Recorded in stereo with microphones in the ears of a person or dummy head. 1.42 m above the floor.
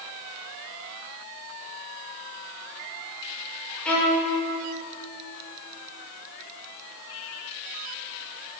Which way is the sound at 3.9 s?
5° left (ahead or behind).